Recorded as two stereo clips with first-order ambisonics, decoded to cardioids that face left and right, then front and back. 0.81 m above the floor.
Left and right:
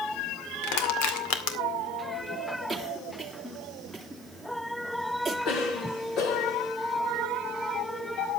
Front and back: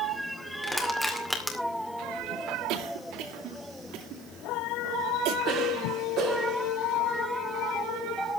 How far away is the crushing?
About 2 m.